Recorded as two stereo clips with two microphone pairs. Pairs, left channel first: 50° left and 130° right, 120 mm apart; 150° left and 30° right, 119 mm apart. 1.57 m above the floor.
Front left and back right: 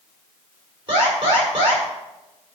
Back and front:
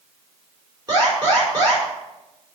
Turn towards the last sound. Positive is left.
turn(degrees=-85)